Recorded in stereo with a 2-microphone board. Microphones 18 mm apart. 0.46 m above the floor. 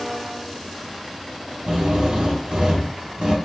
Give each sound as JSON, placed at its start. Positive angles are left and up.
{"t": 1.6, "sound": "a drill", "side_deg": -55, "distance_m": 4.0}